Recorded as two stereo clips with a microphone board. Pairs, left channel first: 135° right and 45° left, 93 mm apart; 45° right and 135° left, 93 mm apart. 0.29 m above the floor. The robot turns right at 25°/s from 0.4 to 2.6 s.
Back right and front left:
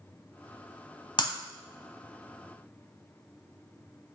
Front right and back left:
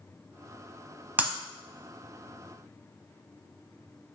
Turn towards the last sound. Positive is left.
turn(degrees=-120)